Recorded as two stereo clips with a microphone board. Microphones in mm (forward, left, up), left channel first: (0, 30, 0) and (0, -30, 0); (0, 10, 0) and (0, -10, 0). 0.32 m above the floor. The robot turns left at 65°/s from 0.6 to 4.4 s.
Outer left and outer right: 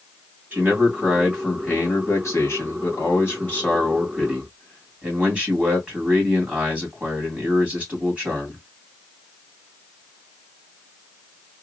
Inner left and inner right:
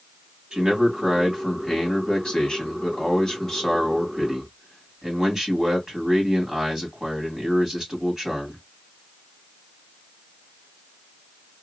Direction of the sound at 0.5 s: 140° right.